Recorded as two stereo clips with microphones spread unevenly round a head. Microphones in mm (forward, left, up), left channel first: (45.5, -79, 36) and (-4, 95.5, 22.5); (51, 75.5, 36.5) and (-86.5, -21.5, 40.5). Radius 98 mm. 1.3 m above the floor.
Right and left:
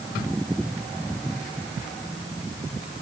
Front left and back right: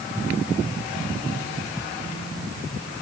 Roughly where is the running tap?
I don't hear a running tap.